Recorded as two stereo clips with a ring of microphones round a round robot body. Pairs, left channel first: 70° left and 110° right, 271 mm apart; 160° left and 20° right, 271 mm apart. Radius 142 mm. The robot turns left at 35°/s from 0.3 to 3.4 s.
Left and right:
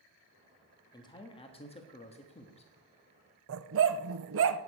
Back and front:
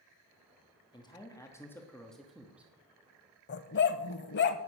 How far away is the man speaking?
About 1.3 m.